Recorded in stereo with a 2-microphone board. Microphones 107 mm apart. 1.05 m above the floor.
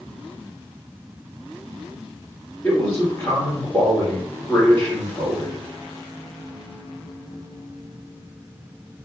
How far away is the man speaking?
About 1.8 m.